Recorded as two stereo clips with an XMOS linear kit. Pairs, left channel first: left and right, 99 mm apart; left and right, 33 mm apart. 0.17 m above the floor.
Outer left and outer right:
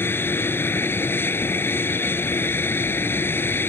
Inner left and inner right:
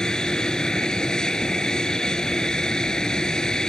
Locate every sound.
0.0 s an aircraft: 20° left (ahead or behind)